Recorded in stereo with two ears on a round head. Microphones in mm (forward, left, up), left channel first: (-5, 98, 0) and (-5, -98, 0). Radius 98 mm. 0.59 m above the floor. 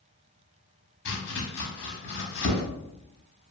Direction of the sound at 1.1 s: 60° left (ahead or behind).